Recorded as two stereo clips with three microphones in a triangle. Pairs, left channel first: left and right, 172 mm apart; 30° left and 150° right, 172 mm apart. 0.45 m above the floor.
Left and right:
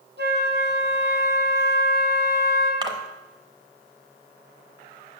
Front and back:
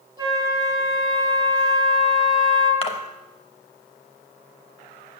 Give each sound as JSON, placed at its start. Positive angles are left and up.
{"t": 0.2, "sound": "a flute", "azimuth_deg": -80, "distance_m": 3.0}
{"t": 2.8, "sound": "a splash", "azimuth_deg": -25, "distance_m": 1.1}